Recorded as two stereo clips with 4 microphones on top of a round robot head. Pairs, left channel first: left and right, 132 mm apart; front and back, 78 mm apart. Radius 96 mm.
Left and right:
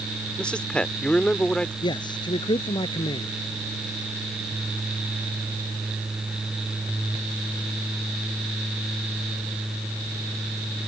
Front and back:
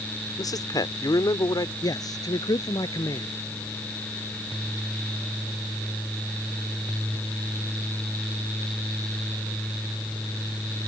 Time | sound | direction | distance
0.4 | a man speaking | 10° left | ?
1.8 | a man speaking | 35° left | ?